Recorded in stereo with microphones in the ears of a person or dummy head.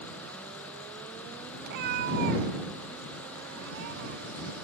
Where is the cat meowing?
50° right (ahead or behind); by 4.5 s 65° right (ahead or behind).